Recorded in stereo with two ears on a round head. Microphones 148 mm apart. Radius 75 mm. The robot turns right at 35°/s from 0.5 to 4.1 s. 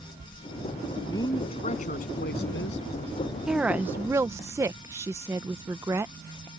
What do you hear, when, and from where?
1.1 s a woman speaking: 20° left; by 2.9 s 80° left
3.5 s a woman speaking: 5° right (ahead or behind); by 6.5 s 15° right (ahead or behind)